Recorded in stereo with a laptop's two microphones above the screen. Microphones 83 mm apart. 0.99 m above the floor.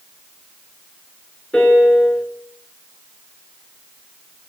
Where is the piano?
15° left (ahead or behind), 4.5 m.